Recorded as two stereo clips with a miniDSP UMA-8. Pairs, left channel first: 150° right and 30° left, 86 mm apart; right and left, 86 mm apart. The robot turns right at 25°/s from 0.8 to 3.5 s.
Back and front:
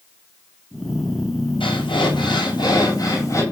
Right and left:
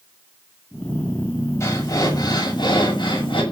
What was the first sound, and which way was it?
Breathing, 140° right.